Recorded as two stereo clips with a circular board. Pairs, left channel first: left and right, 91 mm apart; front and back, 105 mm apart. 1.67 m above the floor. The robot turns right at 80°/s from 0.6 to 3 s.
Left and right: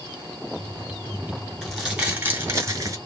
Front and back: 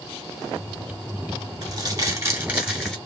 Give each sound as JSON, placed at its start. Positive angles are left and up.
{"t": 1.6, "sound": "crumpling", "azimuth_deg": 170, "distance_m": 1.7}